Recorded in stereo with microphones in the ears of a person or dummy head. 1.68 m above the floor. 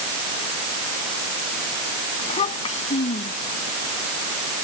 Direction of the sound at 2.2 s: 40° left (ahead or behind).